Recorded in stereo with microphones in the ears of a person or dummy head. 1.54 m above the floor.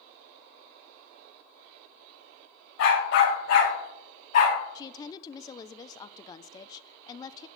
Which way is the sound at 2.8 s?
65° left (ahead or behind).